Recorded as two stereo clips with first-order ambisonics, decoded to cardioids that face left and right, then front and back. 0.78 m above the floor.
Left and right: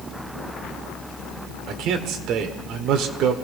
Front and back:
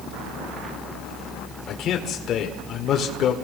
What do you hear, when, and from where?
1.7 s a man speaking: 50° right, 1.9 m